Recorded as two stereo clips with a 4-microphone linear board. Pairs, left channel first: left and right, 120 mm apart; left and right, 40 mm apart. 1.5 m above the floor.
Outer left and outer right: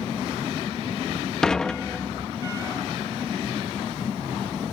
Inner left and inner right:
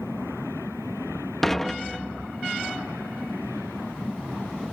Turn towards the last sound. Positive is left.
turn(degrees=5)  # may be behind; listen again after turning